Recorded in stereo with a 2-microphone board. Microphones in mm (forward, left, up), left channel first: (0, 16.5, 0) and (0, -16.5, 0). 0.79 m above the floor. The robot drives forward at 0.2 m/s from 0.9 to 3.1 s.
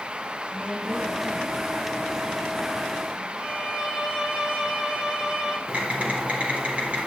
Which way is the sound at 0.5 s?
5° right (ahead or behind).